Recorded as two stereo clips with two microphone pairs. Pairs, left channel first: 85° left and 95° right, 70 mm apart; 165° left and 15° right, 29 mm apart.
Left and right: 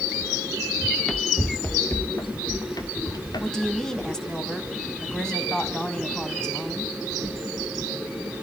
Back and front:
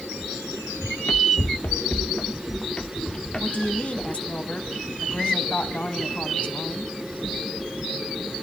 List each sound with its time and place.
0.8 s running footsteps: 175° right, 1.2 m; by 4.4 s 100° left, 2.5 m
3.4 s a woman speaking: 165° left, 1.7 m